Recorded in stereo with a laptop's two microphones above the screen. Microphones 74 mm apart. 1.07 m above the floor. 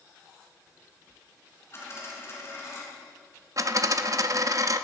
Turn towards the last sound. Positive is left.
turn(degrees=-50)  # may be behind; listen again after turning